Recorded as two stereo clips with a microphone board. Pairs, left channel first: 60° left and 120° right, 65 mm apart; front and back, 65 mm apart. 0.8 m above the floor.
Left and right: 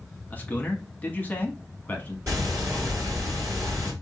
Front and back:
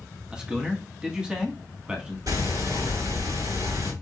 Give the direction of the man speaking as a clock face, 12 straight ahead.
8 o'clock.